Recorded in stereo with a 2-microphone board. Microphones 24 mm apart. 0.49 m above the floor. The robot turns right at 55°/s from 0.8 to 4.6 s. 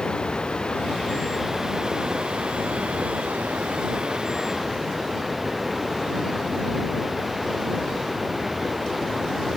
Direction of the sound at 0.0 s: 140° left.